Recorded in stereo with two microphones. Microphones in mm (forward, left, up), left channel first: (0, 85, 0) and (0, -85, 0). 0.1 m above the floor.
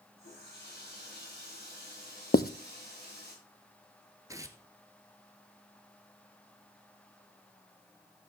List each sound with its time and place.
0.2 s a running tap: 85° left, 9 m
2.3 s writing: 65° left (ahead or behind), 0.6 m
4.3 s tearing paper: 20° right (ahead or behind), 1.1 m